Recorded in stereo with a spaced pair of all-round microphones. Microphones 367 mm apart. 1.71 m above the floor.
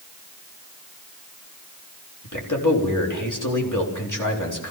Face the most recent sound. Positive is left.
turn(degrees=60)  # may be behind; listen again after turning